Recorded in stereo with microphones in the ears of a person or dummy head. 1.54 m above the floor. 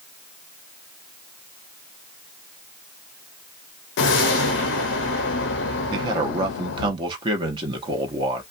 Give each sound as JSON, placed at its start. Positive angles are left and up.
{"t": 4.0, "sound": "a whoosh", "side_deg": 70, "distance_m": 0.6}
{"t": 5.9, "sound": "a man speaking", "side_deg": -30, "distance_m": 0.9}